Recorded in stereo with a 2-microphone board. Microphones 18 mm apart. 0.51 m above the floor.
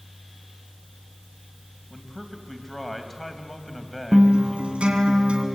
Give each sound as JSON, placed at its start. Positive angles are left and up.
{"t": 1.9, "sound": "a man speaking", "side_deg": 15, "distance_m": 3.5}
{"t": 4.1, "sound": "a guitar", "side_deg": -80, "distance_m": 3.0}